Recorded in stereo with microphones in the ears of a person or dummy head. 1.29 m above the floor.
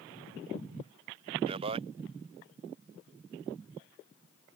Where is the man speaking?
30° right (ahead or behind).